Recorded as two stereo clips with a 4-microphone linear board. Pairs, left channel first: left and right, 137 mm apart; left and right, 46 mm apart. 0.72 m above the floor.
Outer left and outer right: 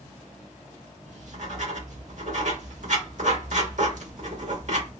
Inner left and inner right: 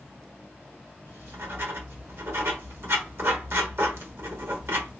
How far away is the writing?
About 1.1 m.